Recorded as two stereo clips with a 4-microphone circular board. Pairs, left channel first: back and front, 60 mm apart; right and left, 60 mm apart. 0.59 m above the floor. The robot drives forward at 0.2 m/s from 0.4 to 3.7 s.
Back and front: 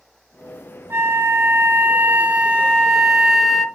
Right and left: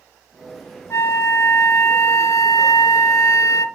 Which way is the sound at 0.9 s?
50° right.